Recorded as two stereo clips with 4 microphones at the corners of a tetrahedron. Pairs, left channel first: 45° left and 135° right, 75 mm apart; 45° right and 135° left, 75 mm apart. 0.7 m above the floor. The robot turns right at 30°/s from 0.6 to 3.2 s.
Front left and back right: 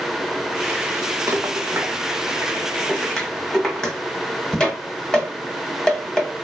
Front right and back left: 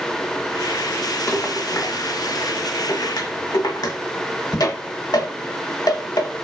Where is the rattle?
95° right, 0.8 m; by 6.3 s 35° right, 0.8 m.